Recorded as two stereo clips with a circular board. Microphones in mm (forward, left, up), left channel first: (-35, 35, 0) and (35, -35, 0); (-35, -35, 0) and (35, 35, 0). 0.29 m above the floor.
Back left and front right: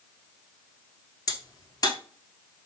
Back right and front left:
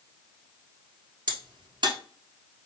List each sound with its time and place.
1.3 s a crack: 85° left, 1.1 m